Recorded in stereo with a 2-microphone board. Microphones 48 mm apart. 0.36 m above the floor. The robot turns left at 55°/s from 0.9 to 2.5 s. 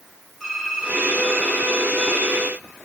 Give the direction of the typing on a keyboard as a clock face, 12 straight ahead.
6 o'clock.